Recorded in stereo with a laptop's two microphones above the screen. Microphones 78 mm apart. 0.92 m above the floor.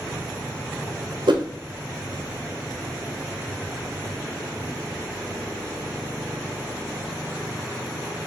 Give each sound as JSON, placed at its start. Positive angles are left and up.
{"t": 1.3, "sound": "a whoosh", "side_deg": -75, "distance_m": 0.6}